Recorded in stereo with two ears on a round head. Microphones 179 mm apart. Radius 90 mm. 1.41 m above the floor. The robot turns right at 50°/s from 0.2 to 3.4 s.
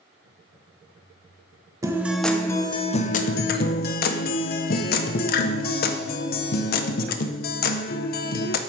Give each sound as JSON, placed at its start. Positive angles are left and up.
{"t": 1.8, "sound": "a guitar", "azimuth_deg": -20, "distance_m": 0.5}